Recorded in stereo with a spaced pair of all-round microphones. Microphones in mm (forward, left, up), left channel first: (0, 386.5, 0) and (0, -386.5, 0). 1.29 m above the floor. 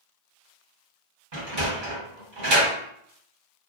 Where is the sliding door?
80° right, 1.3 m.